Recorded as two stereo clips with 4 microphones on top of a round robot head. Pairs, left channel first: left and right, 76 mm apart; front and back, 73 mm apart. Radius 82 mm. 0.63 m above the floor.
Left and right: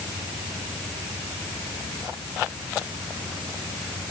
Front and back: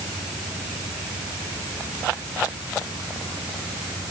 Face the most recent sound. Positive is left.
No sound to turn to.